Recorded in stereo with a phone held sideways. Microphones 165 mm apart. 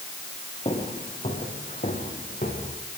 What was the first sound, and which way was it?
Footsteps, 35° left (ahead or behind).